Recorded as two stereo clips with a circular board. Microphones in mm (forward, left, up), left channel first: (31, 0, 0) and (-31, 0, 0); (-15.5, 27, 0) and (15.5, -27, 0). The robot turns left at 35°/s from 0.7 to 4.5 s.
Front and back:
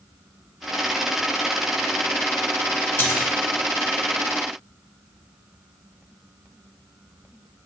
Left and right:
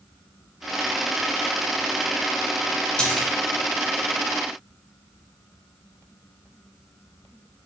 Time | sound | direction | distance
3.0 | a splash | 45° left | 0.7 m